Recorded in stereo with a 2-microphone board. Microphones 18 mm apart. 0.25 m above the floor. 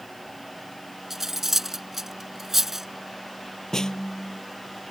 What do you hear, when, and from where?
1.1 s cutlery clinking: 20° right (ahead or behind)
3.7 s a snare drum: 35° left (ahead or behind)